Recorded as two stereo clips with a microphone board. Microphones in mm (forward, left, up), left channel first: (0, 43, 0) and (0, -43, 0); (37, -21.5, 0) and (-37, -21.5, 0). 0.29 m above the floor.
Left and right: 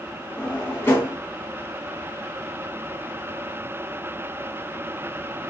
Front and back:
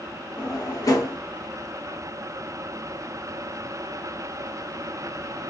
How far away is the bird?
No bird in this recording.